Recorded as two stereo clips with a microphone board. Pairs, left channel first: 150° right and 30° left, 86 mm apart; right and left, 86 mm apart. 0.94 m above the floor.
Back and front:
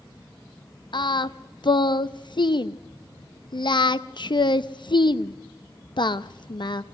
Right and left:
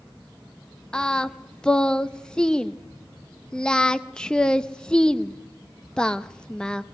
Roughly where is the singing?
Behind.